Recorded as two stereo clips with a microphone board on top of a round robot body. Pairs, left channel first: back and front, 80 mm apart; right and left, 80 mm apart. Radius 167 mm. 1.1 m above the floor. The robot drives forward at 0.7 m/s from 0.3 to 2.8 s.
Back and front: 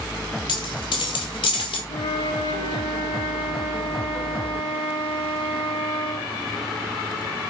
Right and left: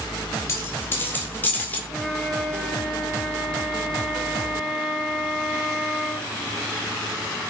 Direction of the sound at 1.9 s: Straight behind.